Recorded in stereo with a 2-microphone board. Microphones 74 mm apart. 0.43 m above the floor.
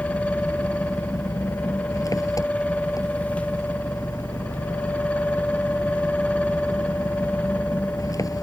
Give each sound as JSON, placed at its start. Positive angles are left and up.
{"t": 0.0, "sound": "an engine running", "side_deg": 55}